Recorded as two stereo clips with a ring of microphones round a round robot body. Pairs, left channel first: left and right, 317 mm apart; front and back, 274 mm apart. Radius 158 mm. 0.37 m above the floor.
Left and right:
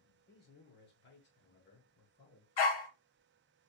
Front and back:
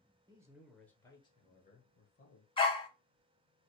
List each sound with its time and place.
0.3 s a man speaking: 120° left, 1.0 m; by 2.5 s 35° left, 1.5 m
2.6 s a dog barking: 75° left, 0.9 m